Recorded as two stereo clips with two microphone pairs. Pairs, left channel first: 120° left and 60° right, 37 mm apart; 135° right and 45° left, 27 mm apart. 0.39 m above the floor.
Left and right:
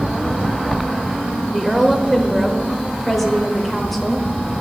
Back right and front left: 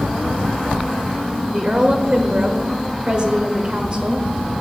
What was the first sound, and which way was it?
A woman speaking, 35° left.